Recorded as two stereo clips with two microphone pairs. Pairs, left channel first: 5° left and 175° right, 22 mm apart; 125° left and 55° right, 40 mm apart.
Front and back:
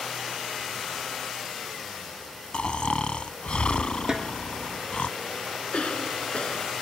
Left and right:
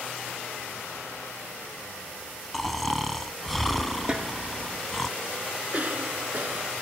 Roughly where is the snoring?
Ahead left.